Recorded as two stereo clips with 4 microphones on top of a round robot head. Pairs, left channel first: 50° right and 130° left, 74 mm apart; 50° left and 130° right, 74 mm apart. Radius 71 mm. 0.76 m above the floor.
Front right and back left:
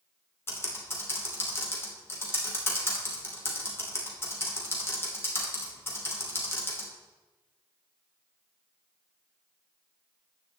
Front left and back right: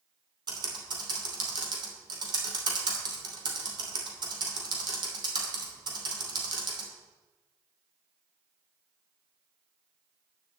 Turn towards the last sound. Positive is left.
turn(degrees=-110)